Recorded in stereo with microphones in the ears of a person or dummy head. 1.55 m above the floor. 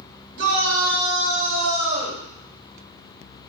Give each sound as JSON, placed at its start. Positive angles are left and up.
{"t": 0.4, "sound": "a shout", "side_deg": -55, "distance_m": 1.7}